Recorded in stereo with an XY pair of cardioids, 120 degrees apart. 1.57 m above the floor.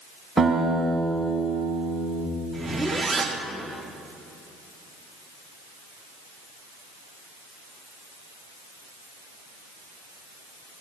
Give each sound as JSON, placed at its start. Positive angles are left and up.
{"t": 0.4, "sound": "a guitar", "azimuth_deg": -10, "distance_m": 5.0}
{"t": 2.5, "sound": "a zipper", "azimuth_deg": -10, "distance_m": 3.0}